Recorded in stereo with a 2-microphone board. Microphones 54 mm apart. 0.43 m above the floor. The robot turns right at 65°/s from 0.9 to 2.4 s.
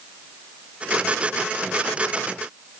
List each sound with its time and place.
Only background noise.